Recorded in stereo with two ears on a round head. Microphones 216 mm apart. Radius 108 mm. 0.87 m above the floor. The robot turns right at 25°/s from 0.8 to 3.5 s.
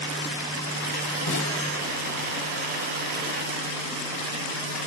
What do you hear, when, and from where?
1.3 s a snare drum: 80° left, 4 m; by 1.6 s 70° left (ahead or behind), 4 m